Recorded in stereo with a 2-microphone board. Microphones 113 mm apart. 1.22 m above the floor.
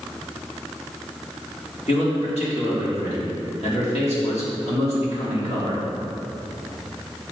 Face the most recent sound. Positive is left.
turn(degrees=70)  # may be behind; listen again after turning